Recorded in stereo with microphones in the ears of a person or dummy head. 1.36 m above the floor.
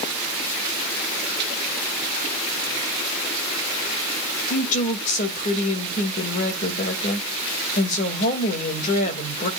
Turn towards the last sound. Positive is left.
turn(degrees=50)  # may be behind; listen again after turning